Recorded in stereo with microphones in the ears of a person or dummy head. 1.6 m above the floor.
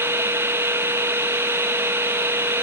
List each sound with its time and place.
0.0 s a machine running: 5° right (ahead or behind), 1.0 m